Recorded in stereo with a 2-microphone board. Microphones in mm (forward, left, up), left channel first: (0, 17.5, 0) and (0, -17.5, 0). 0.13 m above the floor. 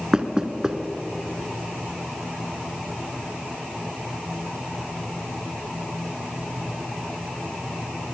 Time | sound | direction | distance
0.1 | knocking | 20° right (ahead or behind) | 1.2 m